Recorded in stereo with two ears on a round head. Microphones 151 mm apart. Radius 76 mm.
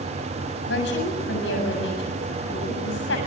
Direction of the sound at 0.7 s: 75° left (ahead or behind).